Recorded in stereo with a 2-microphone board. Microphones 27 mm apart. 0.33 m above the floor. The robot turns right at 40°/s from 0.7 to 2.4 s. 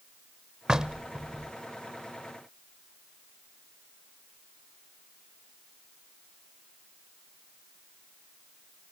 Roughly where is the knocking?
Right.